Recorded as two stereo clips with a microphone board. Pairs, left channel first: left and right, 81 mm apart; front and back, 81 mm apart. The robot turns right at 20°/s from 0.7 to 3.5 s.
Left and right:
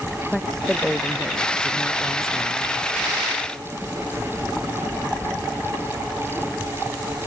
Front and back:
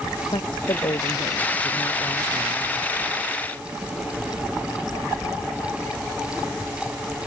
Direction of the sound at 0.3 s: 5° left.